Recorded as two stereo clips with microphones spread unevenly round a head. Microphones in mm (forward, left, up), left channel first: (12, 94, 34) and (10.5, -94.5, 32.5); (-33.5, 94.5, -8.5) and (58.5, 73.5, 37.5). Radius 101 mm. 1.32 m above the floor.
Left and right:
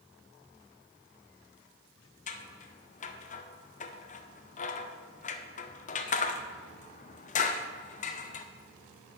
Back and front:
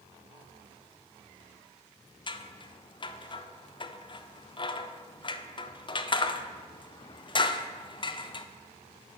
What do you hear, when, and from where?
2.3 s scissors: 145° left, 0.6 m